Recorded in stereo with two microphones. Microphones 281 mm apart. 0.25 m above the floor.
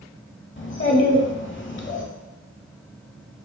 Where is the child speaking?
45° left (ahead or behind), 0.7 m.